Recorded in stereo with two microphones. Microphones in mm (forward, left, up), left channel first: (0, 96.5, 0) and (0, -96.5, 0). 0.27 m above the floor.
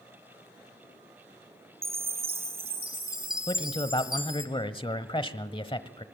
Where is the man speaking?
25° left (ahead or behind), 1.0 m.